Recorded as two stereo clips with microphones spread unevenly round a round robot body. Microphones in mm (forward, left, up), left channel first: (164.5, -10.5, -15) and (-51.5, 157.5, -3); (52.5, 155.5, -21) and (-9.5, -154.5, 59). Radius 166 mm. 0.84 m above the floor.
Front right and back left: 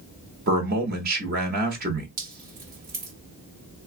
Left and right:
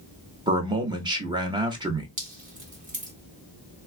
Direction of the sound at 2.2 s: 175° right.